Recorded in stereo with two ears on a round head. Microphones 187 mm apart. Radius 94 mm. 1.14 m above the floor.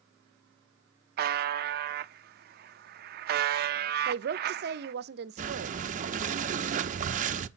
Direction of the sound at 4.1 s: 55° right (ahead or behind).